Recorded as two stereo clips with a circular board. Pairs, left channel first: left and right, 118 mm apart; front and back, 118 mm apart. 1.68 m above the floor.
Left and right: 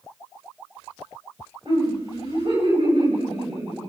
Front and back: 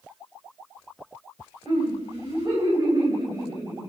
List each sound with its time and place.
1.6 s laughter: 130° right, 9.5 m; by 3.9 s 120° right, 6 m